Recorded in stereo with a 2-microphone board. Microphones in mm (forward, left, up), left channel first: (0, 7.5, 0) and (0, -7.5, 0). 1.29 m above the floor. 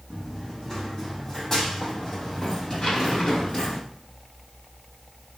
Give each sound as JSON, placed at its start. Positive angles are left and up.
{"t": 0.1, "sound": "running footsteps", "side_deg": 20, "distance_m": 4.5}
{"t": 2.8, "sound": "a zipper", "side_deg": 65, "distance_m": 6.0}